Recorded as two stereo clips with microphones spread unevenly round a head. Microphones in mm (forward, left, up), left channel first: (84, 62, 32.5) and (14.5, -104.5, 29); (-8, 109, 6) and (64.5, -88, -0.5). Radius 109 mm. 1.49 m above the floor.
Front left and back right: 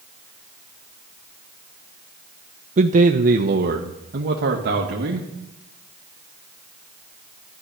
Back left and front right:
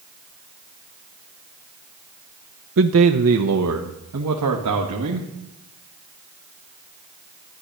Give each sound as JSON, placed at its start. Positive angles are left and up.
{"t": 2.8, "sound": "a man speaking", "azimuth_deg": -70, "distance_m": 0.6}